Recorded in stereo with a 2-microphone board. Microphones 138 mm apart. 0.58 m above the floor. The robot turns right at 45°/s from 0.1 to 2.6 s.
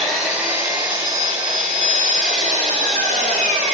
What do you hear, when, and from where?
0.0 s an engine running: 175° left, 1.3 m; by 3.8 s 70° right, 1.3 m